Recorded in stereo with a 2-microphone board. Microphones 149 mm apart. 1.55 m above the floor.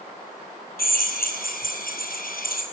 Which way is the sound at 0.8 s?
80° left.